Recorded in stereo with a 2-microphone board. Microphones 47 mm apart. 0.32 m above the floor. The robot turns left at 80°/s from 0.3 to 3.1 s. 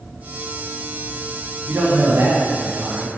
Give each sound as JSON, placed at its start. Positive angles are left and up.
{"t": 1.7, "sound": "a man speaking", "azimuth_deg": -55, "distance_m": 2.0}